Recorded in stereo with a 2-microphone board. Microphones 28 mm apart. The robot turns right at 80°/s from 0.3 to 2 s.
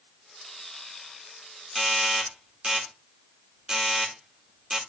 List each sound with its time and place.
1.8 s a doorbell: 5° right (ahead or behind), 2.0 m; by 4.8 s 20° right (ahead or behind), 2.0 m